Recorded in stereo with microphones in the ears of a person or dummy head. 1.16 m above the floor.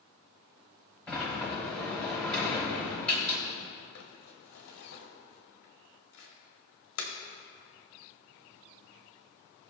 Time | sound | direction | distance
1.1 | a sliding door | 10° left (ahead or behind) | 2 m
4.0 | crumpling | 80° left | 1.8 m